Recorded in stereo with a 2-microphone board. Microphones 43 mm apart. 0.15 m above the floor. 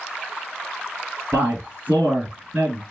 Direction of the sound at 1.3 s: 30° right (ahead or behind).